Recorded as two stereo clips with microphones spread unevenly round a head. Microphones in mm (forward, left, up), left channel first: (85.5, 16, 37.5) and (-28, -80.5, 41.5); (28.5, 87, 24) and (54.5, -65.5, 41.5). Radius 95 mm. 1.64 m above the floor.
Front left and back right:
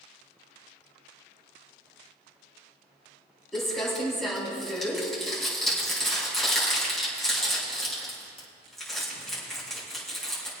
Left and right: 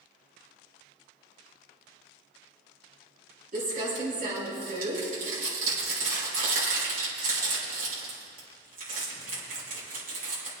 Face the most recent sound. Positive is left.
turn(degrees=-50)